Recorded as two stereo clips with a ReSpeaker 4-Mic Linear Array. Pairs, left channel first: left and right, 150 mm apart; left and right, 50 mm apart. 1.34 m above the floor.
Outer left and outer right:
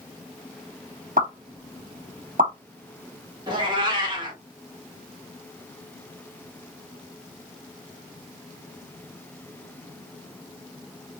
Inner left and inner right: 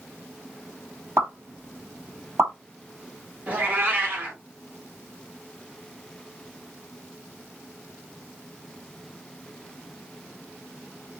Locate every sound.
1.2 s a pop: 65° right (ahead or behind), 1.3 m
3.5 s a cat meowing: 30° right (ahead or behind), 1.3 m